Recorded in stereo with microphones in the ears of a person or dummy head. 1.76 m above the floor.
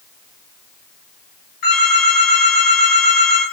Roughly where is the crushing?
No crushing in this recording.